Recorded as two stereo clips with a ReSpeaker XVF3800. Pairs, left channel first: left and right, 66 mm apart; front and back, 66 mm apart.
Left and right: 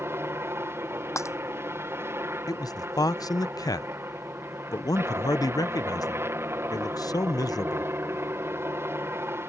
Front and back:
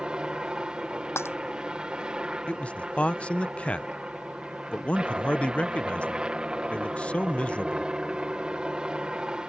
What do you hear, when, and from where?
0.0 s a helicopter: 110° right
1.2 s breaking glass: 50° left
2.5 s a man speaking: 70° left